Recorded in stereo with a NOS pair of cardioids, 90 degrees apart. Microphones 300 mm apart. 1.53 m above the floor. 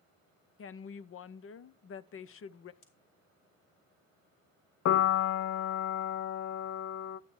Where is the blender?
No blender in this recording.